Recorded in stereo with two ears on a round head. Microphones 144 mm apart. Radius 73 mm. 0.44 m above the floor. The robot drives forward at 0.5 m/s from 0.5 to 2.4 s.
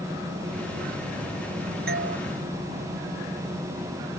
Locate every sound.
1.9 s a doorbell: 70° right (ahead or behind)